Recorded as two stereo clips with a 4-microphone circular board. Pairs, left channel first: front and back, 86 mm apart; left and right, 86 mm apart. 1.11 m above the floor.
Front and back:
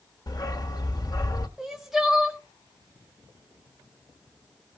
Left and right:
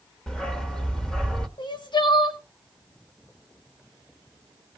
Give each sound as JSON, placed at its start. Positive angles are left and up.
{"t": 0.3, "sound": "a dog barking", "azimuth_deg": 10, "distance_m": 1.0}
{"t": 1.6, "sound": "crying", "azimuth_deg": 95, "distance_m": 1.3}